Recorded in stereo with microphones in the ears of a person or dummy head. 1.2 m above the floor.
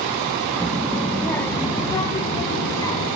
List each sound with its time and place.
0.6 s a child speaking: 5° right (ahead or behind), 1.1 m; by 3.1 s 25° left (ahead or behind), 2.5 m